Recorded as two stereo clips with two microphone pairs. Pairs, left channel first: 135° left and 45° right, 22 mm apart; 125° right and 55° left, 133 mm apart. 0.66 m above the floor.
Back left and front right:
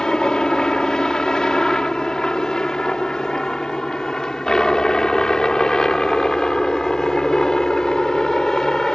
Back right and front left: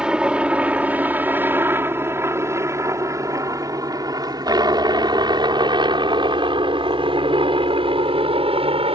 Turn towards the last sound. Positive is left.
turn(degrees=85)